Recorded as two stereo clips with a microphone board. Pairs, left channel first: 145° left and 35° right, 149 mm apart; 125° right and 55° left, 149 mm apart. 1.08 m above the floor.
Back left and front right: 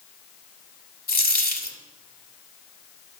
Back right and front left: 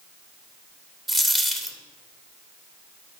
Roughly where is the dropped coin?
Behind left.